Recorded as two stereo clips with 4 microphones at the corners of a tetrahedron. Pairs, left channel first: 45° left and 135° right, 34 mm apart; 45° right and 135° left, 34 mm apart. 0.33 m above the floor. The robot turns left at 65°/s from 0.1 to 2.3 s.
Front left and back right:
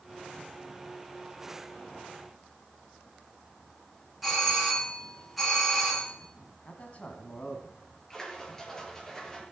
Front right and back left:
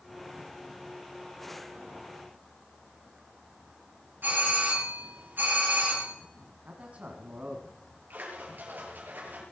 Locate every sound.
4.2 s a doorbell: 130° left, 5.5 m
6.7 s a man speaking: 85° left, 2.5 m
8.1 s a splash: 120° left, 5 m